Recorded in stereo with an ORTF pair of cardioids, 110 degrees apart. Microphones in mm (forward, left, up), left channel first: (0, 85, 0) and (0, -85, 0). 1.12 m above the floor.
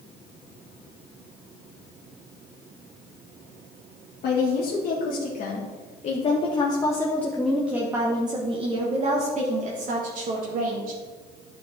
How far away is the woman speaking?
About 2 m.